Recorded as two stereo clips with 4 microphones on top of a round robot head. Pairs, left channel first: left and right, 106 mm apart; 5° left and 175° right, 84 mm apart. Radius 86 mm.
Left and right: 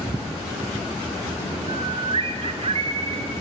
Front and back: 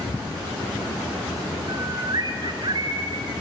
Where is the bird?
130° right, 1.3 m.